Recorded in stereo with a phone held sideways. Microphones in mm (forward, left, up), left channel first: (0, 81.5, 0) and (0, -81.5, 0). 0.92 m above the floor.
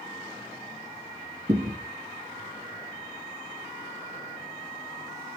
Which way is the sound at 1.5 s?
40° right (ahead or behind).